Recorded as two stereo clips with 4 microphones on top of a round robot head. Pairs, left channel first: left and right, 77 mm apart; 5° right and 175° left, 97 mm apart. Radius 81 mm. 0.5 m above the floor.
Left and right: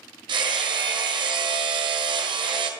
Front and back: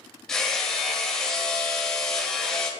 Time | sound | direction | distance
0.3 | hammering | 90° right | 1.5 m